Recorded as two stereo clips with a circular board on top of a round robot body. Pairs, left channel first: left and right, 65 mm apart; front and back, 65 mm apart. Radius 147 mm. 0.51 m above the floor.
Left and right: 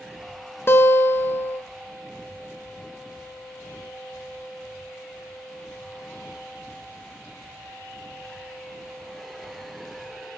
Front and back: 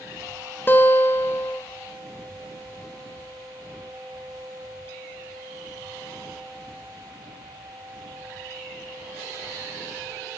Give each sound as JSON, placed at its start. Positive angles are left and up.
{"t": 0.7, "sound": "a guitar", "azimuth_deg": 50, "distance_m": 0.5}